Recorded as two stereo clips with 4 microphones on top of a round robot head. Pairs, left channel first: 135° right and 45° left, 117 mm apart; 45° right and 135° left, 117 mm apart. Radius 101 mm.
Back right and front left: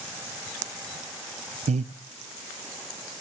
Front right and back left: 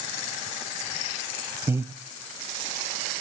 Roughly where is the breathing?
Ahead left.